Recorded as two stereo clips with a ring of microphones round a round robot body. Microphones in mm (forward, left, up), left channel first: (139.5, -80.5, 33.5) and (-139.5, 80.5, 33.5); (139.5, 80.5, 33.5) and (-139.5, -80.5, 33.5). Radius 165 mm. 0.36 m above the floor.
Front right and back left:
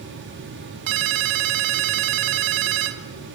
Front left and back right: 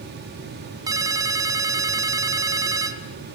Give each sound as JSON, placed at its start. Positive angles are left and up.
{"t": 0.9, "sound": "a ringtone", "azimuth_deg": 130, "distance_m": 1.3}